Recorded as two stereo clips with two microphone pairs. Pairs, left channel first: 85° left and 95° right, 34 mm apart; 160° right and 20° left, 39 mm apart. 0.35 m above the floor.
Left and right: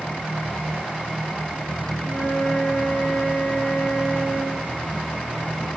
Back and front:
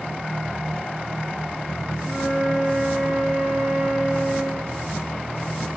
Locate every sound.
2.0 s a flute: 115° left, 5.5 m